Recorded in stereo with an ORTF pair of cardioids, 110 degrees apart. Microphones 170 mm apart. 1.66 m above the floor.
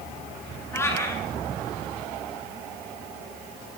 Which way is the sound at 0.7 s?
15° left.